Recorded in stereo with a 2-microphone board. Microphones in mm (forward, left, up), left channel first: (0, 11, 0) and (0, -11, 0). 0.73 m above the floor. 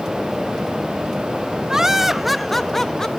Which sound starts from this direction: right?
Laughter, at 1.7 s.